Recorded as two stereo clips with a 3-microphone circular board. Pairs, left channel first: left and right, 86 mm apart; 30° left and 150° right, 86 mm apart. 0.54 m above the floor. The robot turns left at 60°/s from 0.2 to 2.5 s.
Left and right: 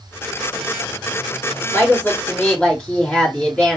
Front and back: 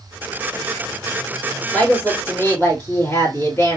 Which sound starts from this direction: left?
A woman speaking, at 1.7 s.